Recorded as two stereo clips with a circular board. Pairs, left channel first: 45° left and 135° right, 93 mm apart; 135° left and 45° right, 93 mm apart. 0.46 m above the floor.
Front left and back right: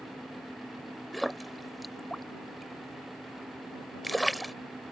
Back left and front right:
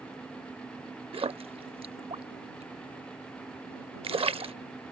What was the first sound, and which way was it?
A splash, 45° right.